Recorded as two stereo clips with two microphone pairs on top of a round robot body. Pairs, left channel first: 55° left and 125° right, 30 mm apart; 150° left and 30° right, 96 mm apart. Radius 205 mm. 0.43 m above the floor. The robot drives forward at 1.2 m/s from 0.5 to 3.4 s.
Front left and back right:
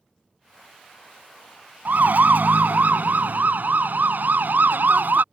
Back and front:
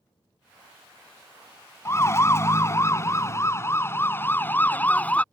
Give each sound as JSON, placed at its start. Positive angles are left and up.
{"t": 1.9, "sound": "a siren", "azimuth_deg": -145}